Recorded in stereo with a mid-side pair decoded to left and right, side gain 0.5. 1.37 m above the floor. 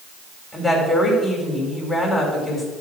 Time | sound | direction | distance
0.5 | a woman speaking | 10° left | 4 m